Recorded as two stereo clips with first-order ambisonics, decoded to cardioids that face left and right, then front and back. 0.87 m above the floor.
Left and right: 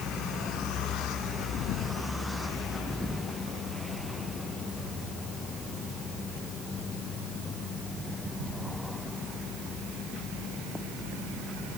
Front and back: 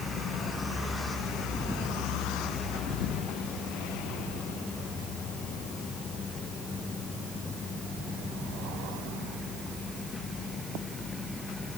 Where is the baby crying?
I don't hear a baby crying.